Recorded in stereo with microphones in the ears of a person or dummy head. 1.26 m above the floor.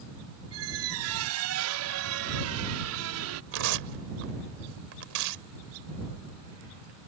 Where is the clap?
I don't hear a clap.